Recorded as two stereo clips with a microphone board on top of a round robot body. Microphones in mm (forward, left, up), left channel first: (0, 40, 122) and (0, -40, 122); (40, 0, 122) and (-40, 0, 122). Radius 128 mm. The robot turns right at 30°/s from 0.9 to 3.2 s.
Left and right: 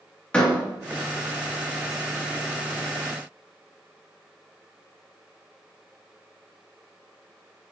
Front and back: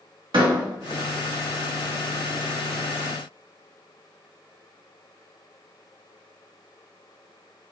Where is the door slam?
165° left, 2 m.